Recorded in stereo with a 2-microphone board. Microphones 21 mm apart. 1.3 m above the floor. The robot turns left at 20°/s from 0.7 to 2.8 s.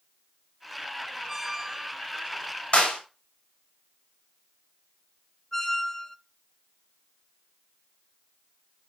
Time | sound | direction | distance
1.3 | a squeak | 10° right (ahead or behind) | 2 m
2.7 | a clap | 60° left (ahead or behind) | 6.5 m
5.5 | a squeak | 30° left (ahead or behind) | 0.8 m